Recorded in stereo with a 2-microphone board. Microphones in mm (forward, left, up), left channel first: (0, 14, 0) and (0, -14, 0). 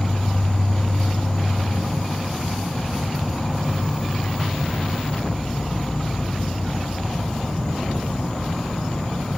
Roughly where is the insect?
Left.